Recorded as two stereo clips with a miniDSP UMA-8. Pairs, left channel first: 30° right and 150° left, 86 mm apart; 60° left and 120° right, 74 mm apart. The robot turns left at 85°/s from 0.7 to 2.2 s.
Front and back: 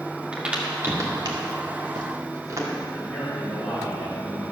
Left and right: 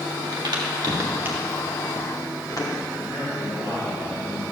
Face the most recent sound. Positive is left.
turn(degrees=55)